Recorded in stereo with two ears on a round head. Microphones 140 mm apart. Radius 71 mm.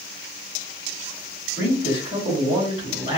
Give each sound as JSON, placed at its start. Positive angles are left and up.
{"t": 1.6, "sound": "a man speaking", "side_deg": 75, "distance_m": 2.0}